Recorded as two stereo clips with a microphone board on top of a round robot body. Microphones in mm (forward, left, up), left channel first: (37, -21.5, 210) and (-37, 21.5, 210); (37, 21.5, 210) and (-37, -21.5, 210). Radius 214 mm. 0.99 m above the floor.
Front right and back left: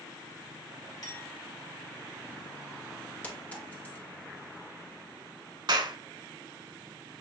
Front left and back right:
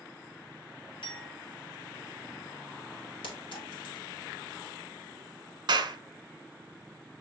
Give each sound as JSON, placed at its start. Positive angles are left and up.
{"t": 1.0, "sound": "a clink", "azimuth_deg": 10, "distance_m": 1.6}
{"t": 3.2, "sound": "a clink", "azimuth_deg": 40, "distance_m": 1.5}
{"t": 5.7, "sound": "a clap", "azimuth_deg": 180, "distance_m": 1.1}